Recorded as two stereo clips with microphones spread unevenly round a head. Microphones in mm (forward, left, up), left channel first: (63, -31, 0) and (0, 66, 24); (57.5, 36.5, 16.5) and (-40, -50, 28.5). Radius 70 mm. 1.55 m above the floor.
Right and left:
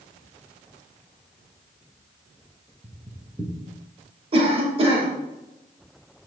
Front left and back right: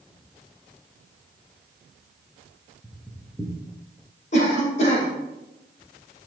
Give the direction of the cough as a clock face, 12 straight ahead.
9 o'clock.